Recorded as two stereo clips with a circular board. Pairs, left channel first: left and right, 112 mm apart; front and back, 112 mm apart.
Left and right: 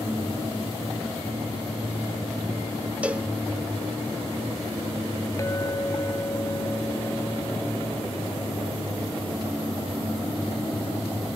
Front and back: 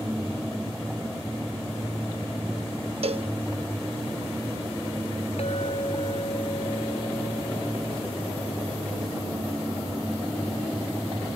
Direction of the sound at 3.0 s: 165° right.